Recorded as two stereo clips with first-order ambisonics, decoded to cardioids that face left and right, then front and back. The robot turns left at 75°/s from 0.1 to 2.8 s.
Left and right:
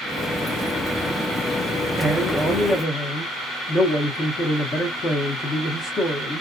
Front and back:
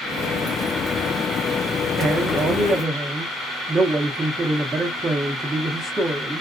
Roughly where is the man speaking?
Behind.